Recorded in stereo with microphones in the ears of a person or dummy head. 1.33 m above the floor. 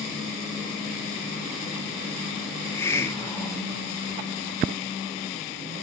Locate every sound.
2.5 s a hiss: 5° left (ahead or behind), 0.5 m